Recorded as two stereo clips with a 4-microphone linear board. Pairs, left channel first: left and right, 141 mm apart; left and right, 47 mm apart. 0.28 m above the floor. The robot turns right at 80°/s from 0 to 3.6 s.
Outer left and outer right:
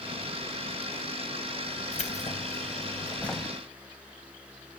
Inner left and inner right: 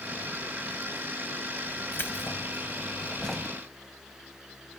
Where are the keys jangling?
60° left, 0.8 m; by 3.5 s 170° right, 0.8 m.